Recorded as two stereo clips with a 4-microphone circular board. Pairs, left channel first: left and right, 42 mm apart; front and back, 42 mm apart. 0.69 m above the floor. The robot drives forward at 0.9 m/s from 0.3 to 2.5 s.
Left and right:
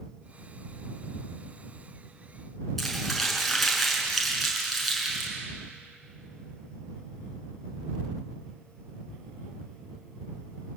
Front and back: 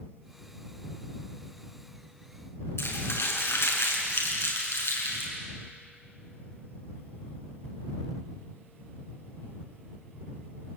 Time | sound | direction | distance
2.8 | crumpling | straight ahead | 6.5 m